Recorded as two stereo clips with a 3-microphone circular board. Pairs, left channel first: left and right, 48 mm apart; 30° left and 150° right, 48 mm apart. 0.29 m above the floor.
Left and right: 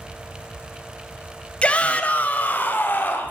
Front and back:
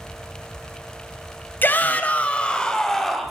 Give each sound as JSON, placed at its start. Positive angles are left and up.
{"t": 1.6, "sound": "a shout", "azimuth_deg": 40, "distance_m": 1.4}